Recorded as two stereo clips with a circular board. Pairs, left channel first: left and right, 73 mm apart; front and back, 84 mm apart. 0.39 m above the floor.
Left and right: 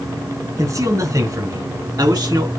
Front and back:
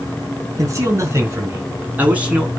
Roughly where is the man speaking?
Behind right.